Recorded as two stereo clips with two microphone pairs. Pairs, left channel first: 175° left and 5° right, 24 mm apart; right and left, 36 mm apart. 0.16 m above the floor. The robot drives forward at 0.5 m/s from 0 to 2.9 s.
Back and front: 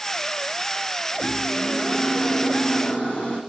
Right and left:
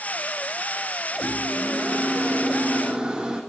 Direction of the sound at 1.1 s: 155° left.